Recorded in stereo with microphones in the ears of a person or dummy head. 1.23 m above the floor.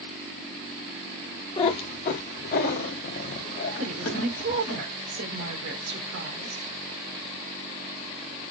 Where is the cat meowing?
25° left (ahead or behind), 1.0 m; by 4.8 s 60° left (ahead or behind), 2 m.